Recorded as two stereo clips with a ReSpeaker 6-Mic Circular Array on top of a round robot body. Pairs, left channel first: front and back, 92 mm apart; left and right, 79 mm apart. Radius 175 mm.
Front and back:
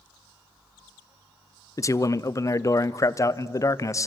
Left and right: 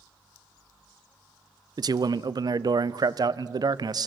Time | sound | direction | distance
1.8 | a man speaking | 55° right | 0.5 m